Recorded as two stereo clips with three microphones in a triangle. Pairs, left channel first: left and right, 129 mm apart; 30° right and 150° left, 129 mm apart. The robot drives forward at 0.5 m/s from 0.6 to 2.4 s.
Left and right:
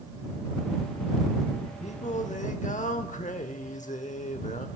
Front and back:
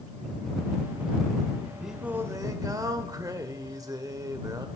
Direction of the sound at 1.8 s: 60° left.